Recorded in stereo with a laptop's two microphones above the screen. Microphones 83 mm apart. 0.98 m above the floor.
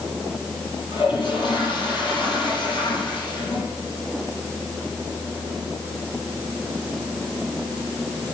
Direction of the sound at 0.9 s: 70° left (ahead or behind).